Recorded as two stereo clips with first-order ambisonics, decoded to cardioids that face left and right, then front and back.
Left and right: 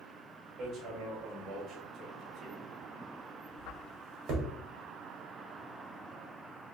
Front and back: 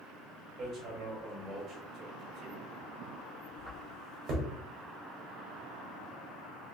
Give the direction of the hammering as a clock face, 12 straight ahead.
5 o'clock.